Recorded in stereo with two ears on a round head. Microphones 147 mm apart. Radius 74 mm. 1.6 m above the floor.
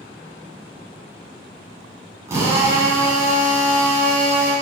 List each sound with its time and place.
2.3 s a drill: 20° right (ahead or behind), 8 m